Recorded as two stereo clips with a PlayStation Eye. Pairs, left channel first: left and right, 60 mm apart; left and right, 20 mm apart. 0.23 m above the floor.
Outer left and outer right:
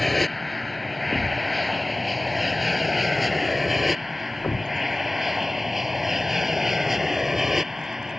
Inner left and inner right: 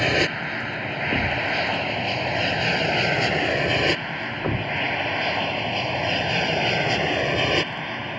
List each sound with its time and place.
0.0 s an aircraft: centre (ahead or behind); by 8.2 s 5° right (ahead or behind)
1.1 s a thud: 30° left (ahead or behind)